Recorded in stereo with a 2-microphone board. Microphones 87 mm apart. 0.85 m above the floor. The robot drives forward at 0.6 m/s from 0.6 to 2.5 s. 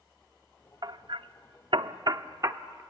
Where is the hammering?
50° right (ahead or behind), 0.7 m; by 2.8 s 35° right (ahead or behind), 0.9 m.